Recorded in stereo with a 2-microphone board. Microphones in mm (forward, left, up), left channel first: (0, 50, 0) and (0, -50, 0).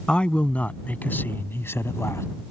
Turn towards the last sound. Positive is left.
turn(degrees=30)  # may be behind; listen again after turning